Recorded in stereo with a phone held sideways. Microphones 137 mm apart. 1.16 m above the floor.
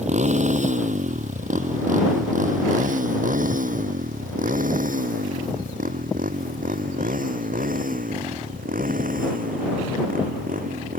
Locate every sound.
0.0 s a motorcycle: 55° right (ahead or behind); by 11.0 s 85° right